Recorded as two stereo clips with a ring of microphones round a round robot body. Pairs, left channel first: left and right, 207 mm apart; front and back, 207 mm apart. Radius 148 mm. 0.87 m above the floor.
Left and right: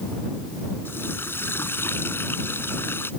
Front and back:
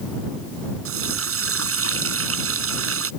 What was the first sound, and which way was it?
A running tap, 175° left.